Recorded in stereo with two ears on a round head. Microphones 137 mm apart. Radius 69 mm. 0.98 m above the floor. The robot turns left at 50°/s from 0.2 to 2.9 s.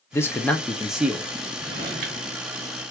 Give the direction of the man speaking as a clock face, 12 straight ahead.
11 o'clock.